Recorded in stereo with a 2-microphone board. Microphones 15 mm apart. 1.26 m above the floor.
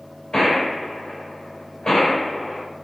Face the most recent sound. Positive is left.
turn(degrees=50)  # may be behind; listen again after turning